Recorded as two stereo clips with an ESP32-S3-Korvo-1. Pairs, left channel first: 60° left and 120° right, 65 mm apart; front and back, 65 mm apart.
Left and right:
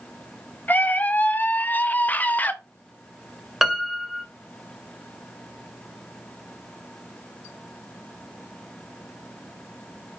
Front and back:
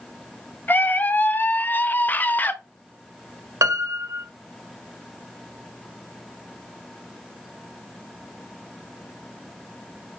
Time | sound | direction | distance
0.7 | a scream | 25° left | 0.7 m
3.6 | a piano | 155° left | 1.2 m